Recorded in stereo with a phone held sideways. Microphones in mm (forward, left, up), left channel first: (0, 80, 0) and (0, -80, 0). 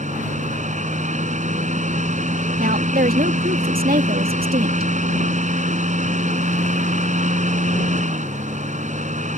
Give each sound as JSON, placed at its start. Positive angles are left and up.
{"t": 0.0, "sound": "a fan", "side_deg": -50}
{"t": 2.6, "sound": "a woman speaking", "side_deg": -70}